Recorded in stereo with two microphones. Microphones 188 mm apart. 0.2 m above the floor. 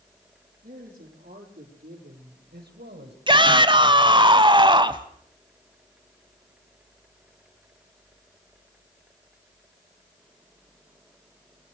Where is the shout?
25° right (ahead or behind), 1.1 m.